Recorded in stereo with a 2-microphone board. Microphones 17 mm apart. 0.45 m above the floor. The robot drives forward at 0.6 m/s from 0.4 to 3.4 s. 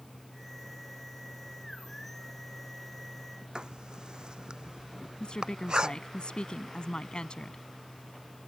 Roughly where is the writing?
Right.